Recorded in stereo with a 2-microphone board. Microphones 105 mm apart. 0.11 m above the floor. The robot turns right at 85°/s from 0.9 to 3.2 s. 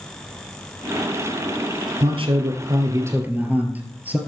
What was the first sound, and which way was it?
A man speaking, 120° right.